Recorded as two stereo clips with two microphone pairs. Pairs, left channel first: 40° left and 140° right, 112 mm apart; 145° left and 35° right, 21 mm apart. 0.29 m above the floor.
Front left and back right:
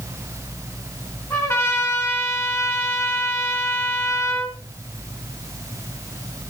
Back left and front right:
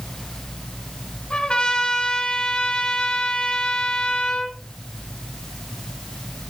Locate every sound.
1.3 s a trumpet: 95° left, 3.5 m